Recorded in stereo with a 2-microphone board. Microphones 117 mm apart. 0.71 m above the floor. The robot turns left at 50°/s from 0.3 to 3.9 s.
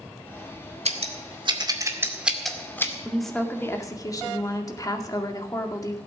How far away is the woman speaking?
About 2.0 m.